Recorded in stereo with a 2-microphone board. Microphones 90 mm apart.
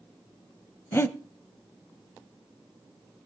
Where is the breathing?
25° left (ahead or behind), 0.8 m.